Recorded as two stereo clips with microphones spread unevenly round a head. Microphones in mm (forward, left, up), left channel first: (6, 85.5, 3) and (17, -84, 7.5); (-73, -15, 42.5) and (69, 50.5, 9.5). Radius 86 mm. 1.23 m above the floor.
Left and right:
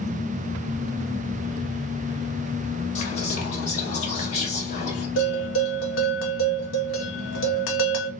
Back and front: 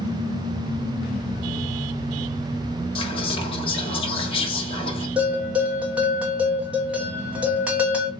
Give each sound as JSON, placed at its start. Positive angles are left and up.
{"t": 3.0, "sound": "whispering", "azimuth_deg": 150, "distance_m": 1.7}
{"t": 5.2, "sound": "a bell", "azimuth_deg": 110, "distance_m": 1.1}